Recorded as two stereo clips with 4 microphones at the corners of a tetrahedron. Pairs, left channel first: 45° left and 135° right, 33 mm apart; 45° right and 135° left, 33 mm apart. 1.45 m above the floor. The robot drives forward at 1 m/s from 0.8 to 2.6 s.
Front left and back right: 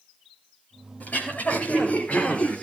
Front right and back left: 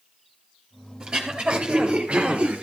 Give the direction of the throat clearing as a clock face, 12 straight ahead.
10 o'clock.